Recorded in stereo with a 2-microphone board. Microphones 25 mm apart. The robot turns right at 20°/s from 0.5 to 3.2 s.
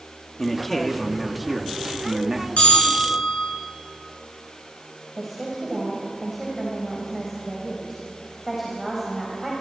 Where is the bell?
70° left (ahead or behind), 5.5 m; by 3.5 s 85° left, 5.5 m.